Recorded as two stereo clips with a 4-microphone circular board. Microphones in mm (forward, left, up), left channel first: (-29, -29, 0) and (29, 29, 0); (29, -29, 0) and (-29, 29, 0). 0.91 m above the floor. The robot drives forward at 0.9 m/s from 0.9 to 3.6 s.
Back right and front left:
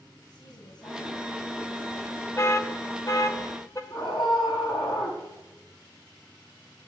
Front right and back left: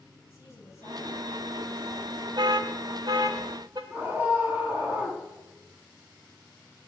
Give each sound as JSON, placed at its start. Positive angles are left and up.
{"t": 0.3, "sound": "a woman speaking", "azimuth_deg": -100, "distance_m": 7.0}
{"t": 2.4, "sound": "an alarm", "azimuth_deg": 170, "distance_m": 1.1}
{"t": 3.9, "sound": "a scream", "azimuth_deg": -155, "distance_m": 8.0}